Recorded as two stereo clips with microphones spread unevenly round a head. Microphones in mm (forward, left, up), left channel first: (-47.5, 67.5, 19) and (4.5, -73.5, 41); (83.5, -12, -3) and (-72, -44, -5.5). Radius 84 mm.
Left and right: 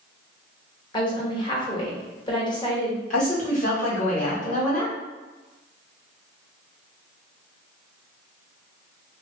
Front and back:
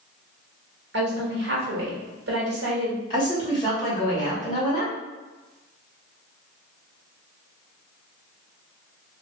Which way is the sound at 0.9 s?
170° left.